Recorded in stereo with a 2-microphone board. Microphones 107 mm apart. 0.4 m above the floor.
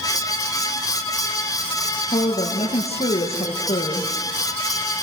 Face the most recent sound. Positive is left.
turn(degrees=80)